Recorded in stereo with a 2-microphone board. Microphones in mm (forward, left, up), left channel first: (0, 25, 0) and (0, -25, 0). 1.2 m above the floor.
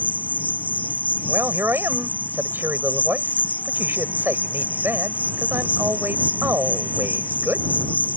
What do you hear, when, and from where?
0.0 s an insect: 30° left (ahead or behind)
1.3 s a man speaking: 45° right (ahead or behind)